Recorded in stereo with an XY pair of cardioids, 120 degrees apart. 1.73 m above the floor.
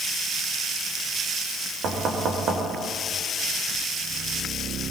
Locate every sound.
1.8 s knocking: 55° right, 5.5 m